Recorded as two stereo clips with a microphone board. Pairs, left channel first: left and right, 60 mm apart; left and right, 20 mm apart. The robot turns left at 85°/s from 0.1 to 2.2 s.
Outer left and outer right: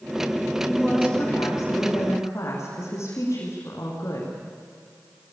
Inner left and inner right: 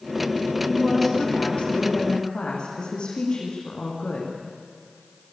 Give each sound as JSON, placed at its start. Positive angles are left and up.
{"t": 0.7, "sound": "a woman speaking", "azimuth_deg": -175, "distance_m": 6.5}